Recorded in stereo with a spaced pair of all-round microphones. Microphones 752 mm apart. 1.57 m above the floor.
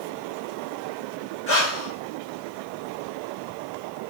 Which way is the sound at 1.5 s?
35° left (ahead or behind).